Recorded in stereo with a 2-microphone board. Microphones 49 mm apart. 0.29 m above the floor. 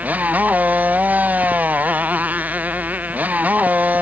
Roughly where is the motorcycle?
Right.